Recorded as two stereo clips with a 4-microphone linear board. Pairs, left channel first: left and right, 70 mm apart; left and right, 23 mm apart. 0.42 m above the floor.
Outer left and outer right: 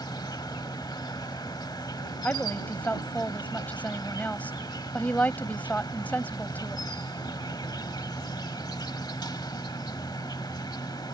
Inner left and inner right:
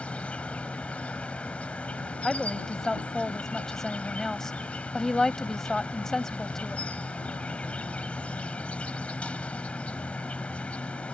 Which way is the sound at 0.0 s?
70° left (ahead or behind).